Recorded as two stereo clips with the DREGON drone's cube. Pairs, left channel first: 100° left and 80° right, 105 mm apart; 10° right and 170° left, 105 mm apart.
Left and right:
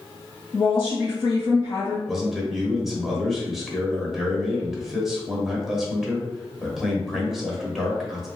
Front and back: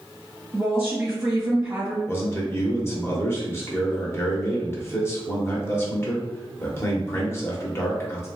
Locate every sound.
0.5 s a woman speaking: 110° left, 1.9 m
2.1 s a man speaking: 5° left, 0.9 m